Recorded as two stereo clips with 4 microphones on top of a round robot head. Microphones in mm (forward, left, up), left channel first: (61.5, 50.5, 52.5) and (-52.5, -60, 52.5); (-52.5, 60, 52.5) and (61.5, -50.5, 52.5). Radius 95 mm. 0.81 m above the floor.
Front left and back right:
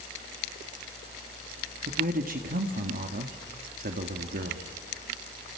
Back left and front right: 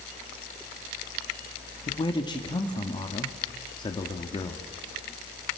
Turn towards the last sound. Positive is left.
turn(degrees=-160)